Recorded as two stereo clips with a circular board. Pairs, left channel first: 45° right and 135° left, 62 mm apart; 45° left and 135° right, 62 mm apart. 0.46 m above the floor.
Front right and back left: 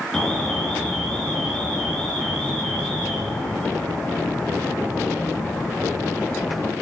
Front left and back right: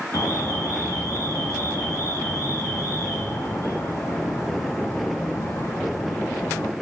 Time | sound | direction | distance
0.1 | an alarm | 30° left | 3 m